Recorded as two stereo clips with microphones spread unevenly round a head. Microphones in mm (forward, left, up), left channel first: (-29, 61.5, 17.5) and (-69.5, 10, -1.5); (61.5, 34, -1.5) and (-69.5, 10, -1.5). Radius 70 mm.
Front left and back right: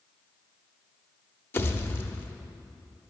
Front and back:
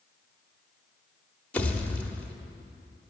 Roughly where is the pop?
Left.